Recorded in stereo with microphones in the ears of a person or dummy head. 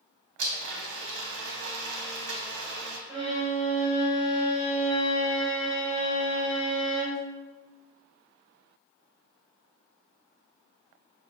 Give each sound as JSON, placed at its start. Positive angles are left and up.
{"t": 0.4, "sound": "a blender", "side_deg": -65, "distance_m": 0.8}
{"t": 3.1, "sound": "a violin", "side_deg": -10, "distance_m": 1.7}